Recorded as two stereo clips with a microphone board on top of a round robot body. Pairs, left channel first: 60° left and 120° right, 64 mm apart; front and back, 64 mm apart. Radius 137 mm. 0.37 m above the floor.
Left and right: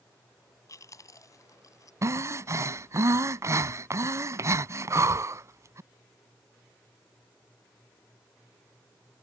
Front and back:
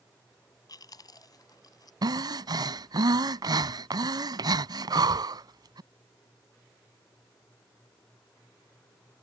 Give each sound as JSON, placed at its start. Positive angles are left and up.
{"t": 0.7, "sound": "chewing", "azimuth_deg": 25}
{"t": 2.0, "sound": "breathing", "azimuth_deg": -165}